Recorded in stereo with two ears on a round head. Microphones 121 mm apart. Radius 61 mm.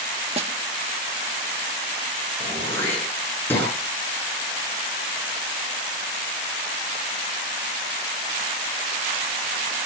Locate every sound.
0.4 s a snare drum: 45° right (ahead or behind), 1.4 m
2.4 s throat clearing: 15° left (ahead or behind), 9 m